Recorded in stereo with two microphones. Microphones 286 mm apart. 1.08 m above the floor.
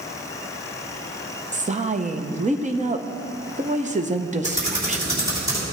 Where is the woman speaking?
25° right (ahead or behind), 0.7 m.